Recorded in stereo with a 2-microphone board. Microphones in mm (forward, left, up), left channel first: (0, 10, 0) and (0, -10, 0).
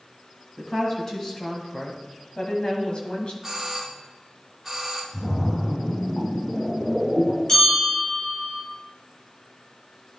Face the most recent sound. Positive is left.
turn(degrees=30)  # may be behind; listen again after turning